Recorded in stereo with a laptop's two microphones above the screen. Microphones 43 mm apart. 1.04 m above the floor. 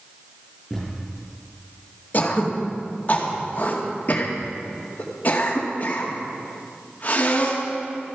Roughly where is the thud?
Centre.